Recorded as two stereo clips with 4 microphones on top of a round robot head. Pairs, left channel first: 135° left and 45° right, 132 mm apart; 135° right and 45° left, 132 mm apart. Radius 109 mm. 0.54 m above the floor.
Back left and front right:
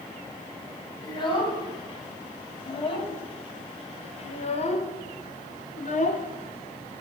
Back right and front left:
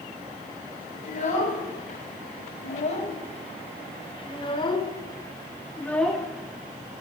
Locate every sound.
1.0 s a child speaking: 170° right, 3.5 m; by 7.0 s 110° left, 1.2 m